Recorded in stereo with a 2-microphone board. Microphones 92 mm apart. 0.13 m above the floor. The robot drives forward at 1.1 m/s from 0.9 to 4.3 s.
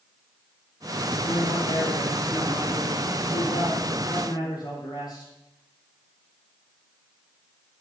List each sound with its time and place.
1.2 s a man speaking: 70° left (ahead or behind), 3.5 m; by 5.3 s 45° left (ahead or behind), 4.5 m